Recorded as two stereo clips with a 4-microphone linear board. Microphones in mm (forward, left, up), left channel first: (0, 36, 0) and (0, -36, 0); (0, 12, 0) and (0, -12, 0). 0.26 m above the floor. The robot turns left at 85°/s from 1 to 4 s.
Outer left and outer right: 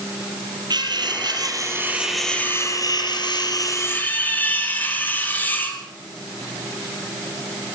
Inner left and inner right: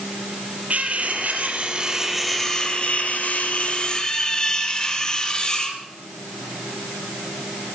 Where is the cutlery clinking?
80° right, 4 m; by 5.8 s 25° left, 4 m.